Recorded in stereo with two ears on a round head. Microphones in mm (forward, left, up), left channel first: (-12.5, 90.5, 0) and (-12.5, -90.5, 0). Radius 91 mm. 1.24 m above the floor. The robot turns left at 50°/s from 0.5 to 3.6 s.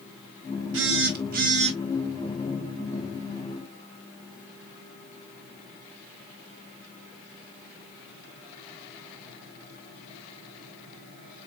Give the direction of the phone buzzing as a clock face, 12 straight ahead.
3 o'clock.